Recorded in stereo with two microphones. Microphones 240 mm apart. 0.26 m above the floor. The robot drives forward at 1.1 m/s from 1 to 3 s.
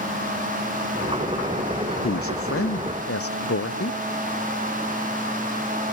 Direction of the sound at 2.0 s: 60° left (ahead or behind).